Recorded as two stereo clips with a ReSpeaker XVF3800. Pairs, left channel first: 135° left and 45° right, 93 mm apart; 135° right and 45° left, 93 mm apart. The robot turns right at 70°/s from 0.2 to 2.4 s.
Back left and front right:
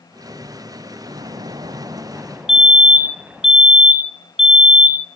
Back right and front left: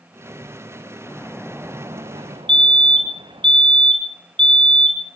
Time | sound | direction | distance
1.0 | a splash | 65° right | 1.3 m
2.5 | a fire alarm | 40° left | 3 m